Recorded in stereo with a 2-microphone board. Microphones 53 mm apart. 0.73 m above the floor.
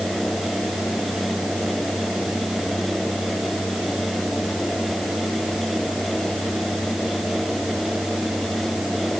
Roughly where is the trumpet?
I don't hear a trumpet.